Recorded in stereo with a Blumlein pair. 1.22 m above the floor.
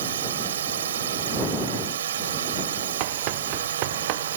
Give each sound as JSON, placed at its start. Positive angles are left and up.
{"t": 0.0, "sound": "a drone", "azimuth_deg": -60}
{"t": 3.0, "sound": "running footsteps", "azimuth_deg": -45}